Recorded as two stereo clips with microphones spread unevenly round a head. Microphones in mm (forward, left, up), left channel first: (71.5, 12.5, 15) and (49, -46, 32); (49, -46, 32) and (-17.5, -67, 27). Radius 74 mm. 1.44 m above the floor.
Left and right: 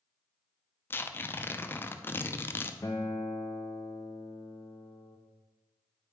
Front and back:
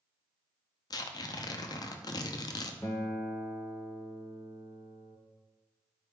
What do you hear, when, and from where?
0.9 s tearing paper: 10° left, 0.6 m
2.8 s a guitar: 60° left, 0.8 m